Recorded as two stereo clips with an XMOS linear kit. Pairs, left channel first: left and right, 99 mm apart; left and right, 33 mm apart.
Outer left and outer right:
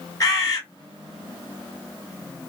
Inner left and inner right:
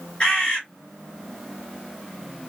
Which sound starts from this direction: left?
A bird, at 0.2 s.